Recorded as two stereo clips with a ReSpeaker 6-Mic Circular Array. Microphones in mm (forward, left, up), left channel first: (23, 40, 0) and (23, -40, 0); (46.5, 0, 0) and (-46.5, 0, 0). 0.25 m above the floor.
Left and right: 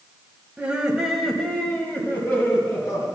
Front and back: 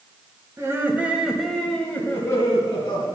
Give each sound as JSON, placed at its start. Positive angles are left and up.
{"t": 0.6, "sound": "laughter", "azimuth_deg": -150, "distance_m": 1.3}